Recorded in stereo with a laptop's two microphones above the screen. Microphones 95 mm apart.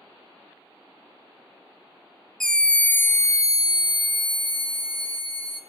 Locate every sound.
2.4 s a scream: 5° left (ahead or behind), 1.0 m; by 5.6 s 70° left (ahead or behind), 1.4 m